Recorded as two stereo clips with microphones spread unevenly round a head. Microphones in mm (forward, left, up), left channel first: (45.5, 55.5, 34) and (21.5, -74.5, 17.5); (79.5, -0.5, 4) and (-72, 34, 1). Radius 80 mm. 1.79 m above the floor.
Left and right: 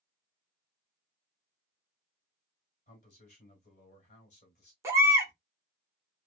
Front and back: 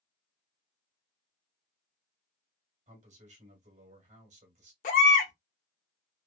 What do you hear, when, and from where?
2.9 s a man speaking: 125° left, 1.6 m
4.8 s a baby crying: 30° right, 1.0 m